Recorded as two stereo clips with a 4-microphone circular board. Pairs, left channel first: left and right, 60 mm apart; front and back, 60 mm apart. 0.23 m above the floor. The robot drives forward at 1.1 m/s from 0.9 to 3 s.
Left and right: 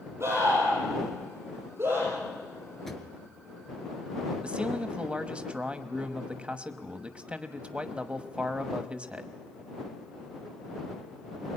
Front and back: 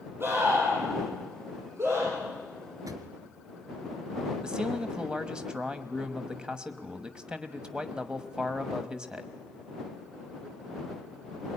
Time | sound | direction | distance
0.2 | a scream | 130° right | 7.5 m
2.9 | a drawer | 175° left | 1.5 m
4.4 | a man speaking | 130° right | 1.1 m